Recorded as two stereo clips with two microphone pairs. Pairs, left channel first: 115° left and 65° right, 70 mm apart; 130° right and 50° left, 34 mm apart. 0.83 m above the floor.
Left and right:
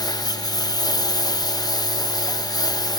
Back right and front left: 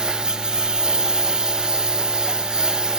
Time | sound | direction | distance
0.0 | a lawn mower | 110° left | ?